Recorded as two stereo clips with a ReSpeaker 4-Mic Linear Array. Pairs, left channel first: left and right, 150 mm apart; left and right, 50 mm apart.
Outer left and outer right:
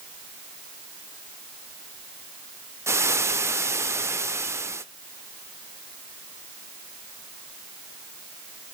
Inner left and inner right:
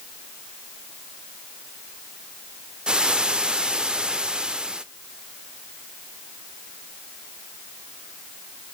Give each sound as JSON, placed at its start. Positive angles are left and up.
{"t": 2.9, "sound": "frying", "side_deg": -15, "distance_m": 0.5}